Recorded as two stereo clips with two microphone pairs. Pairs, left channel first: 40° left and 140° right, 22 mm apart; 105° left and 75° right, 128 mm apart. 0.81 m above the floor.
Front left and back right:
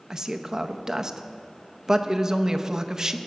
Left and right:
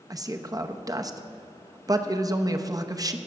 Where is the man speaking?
105° right, 0.6 m.